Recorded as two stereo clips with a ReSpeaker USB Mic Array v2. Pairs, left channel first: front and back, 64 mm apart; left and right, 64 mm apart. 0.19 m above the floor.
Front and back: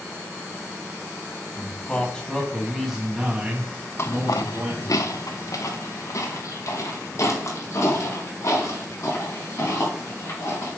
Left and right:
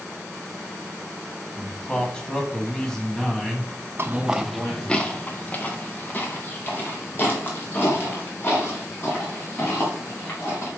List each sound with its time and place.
1.6 s a man speaking: 30° left, 1.6 m; by 5.0 s 175° left, 2 m
4.0 s footsteps: 45° right, 0.5 m; by 10.7 s 40° left, 6 m